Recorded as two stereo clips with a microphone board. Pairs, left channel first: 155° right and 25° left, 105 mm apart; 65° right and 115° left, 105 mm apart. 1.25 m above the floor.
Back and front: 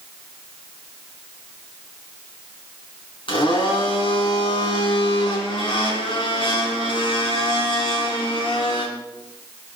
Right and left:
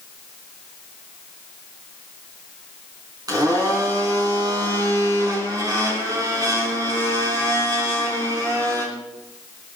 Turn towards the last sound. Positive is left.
turn(degrees=165)